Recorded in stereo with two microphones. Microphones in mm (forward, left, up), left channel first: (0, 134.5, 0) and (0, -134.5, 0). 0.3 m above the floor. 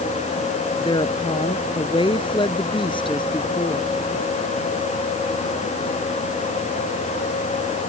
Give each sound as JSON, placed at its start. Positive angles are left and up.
{"t": 0.8, "sound": "a woman speaking", "side_deg": 20}